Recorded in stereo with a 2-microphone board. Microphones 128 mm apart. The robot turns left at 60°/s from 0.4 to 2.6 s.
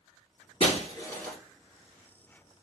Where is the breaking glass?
50° left (ahead or behind), 1.5 m; by 1.4 s 5° left (ahead or behind), 1.5 m.